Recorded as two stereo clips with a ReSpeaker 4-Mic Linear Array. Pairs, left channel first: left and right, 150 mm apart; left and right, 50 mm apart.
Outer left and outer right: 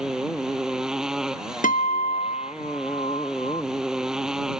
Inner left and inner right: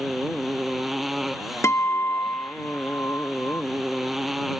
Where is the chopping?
I don't hear chopping.